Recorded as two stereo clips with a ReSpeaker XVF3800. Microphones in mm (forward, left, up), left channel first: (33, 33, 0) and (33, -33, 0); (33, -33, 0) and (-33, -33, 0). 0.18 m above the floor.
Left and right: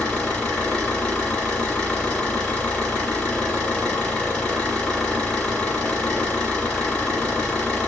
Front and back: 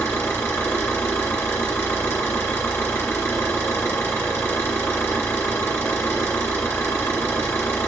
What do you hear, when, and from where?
0.0 s an engine running: 30° left, 1.7 m